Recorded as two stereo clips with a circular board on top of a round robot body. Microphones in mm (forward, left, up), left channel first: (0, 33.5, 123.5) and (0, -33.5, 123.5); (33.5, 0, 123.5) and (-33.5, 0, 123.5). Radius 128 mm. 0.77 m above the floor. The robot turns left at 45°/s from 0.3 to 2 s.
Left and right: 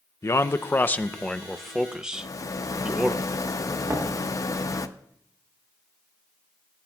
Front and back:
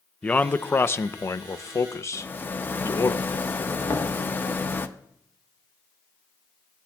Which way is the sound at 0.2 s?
60° left.